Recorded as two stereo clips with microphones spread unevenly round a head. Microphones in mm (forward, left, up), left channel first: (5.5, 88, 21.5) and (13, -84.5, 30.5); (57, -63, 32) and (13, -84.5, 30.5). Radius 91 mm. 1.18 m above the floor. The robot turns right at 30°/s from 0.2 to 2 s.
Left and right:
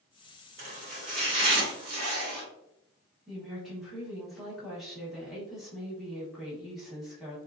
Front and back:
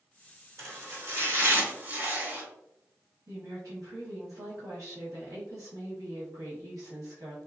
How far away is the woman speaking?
About 1.2 m.